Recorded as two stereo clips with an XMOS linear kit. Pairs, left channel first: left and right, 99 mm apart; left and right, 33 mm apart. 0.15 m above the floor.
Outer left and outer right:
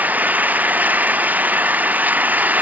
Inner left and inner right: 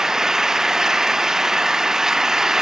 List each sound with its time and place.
0.0 s an engine running: 15° right (ahead or behind)